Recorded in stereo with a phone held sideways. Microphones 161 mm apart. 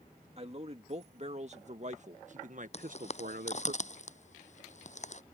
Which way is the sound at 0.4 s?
40° right (ahead or behind).